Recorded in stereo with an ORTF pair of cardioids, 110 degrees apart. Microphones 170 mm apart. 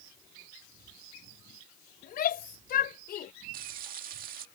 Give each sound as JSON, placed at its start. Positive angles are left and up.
{"t": 2.0, "sound": "a shout", "azimuth_deg": 60}
{"t": 3.5, "sound": "frying", "azimuth_deg": -60}